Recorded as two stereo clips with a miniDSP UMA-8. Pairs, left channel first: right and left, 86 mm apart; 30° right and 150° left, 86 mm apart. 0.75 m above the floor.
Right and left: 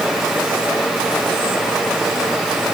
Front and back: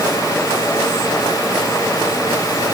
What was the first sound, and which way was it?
Only background noise.